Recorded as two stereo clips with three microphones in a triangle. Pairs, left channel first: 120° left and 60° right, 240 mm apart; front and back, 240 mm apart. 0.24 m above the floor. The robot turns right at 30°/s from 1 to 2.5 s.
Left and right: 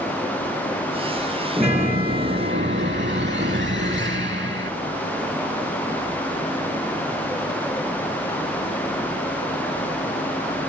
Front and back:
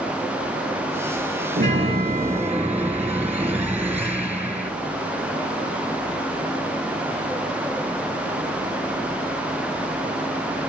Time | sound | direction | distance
1.6 | a chime | 125° right | 3.5 m